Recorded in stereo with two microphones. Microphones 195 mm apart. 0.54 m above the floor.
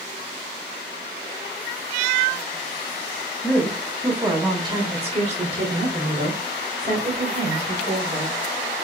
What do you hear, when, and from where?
3.4 s a woman speaking: 5° left (ahead or behind), 1.2 m; by 8.4 s 50° right (ahead or behind), 3 m